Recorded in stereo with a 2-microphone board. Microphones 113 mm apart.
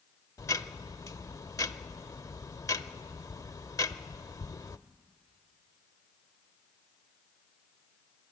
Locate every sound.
0.4 s ticking: 30° left (ahead or behind), 0.5 m